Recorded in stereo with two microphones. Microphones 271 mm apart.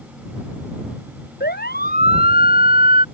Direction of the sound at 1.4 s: 35° left (ahead or behind).